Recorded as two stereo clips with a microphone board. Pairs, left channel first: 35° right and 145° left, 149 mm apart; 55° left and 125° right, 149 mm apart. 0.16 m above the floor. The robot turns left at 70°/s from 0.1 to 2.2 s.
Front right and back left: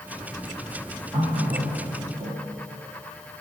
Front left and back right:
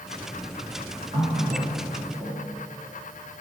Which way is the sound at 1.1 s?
135° right.